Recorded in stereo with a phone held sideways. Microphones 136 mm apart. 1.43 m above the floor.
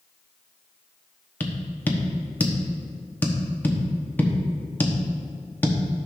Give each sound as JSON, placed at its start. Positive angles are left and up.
{"t": 1.4, "sound": "tapping", "side_deg": 15, "distance_m": 1.1}